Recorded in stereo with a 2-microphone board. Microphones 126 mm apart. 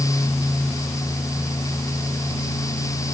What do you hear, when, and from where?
Only background noise.